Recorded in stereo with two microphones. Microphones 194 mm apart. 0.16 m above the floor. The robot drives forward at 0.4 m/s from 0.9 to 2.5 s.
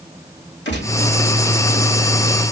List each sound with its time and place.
0.7 s a gunshot: 75° left (ahead or behind), 3 m